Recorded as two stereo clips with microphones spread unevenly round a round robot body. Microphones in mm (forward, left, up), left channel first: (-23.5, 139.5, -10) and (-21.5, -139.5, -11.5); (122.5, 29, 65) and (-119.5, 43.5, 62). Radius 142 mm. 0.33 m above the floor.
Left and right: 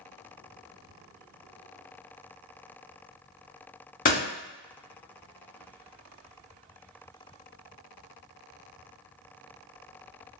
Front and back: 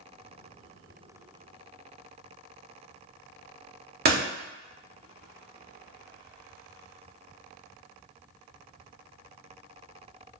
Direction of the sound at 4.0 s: 145° left.